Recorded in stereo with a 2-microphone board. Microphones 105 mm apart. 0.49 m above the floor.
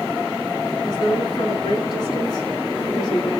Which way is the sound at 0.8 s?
40° left (ahead or behind).